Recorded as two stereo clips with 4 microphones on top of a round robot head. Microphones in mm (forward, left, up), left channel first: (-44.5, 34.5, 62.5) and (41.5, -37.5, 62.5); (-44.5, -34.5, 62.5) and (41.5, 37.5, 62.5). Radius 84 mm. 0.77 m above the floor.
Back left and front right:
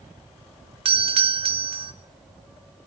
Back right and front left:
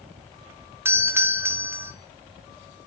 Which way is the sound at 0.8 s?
25° right.